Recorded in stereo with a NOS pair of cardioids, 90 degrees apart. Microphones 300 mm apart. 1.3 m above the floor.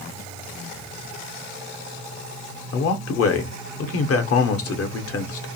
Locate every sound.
2.7 s a man speaking: 50° left, 0.7 m